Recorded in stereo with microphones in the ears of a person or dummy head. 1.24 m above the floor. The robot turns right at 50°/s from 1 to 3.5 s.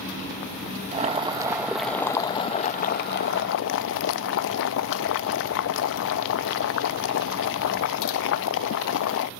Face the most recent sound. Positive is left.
turn(degrees=85)